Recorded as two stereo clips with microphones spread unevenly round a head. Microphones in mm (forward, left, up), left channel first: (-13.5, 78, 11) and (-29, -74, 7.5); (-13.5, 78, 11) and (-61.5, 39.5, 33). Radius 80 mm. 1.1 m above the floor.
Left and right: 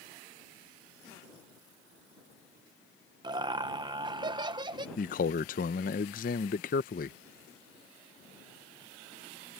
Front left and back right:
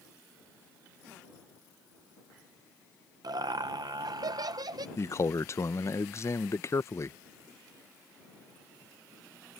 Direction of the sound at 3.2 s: 150° right.